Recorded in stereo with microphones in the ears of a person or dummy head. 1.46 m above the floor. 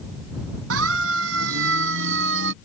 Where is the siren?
90° right; by 2.5 s 75° right (ahead or behind).